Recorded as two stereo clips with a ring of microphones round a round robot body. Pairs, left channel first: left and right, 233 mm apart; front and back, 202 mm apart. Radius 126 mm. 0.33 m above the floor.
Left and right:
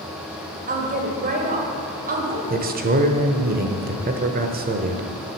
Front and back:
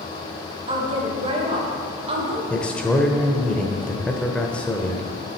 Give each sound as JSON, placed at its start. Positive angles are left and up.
{"t": 0.7, "sound": "a woman speaking", "azimuth_deg": -125, "distance_m": 1.9}
{"t": 2.5, "sound": "a man speaking", "azimuth_deg": -80, "distance_m": 1.0}